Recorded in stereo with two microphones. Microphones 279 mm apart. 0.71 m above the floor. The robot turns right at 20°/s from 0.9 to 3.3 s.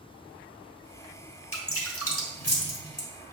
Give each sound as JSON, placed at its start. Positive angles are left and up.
{"t": 1.5, "sound": "dripping", "side_deg": 45, "distance_m": 1.4}